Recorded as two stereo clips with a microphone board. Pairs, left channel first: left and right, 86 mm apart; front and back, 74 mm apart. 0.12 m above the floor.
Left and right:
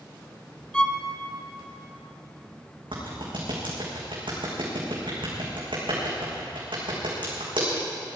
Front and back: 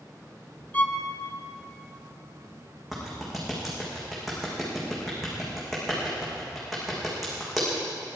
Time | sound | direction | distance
0.7 | a violin | 25° left | 0.9 m
2.9 | a clap | 90° right | 6 m